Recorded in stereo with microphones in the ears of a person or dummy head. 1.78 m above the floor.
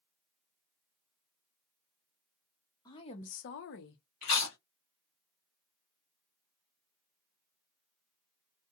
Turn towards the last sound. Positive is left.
turn(degrees=20)  # may be behind; listen again after turning